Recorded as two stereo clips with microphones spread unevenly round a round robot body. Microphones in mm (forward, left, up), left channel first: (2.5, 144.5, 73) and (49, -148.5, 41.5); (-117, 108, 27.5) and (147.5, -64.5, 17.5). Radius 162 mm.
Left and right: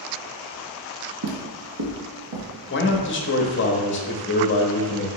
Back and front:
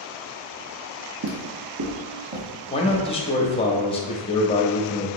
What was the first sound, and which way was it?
Footsteps, 65° right.